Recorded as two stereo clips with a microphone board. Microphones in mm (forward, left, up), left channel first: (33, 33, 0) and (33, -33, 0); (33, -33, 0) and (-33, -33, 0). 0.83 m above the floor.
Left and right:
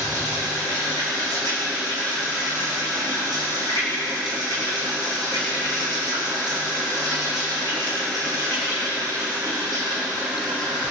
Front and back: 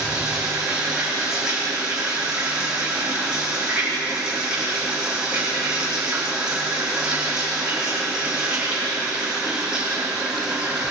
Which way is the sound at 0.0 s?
105° right.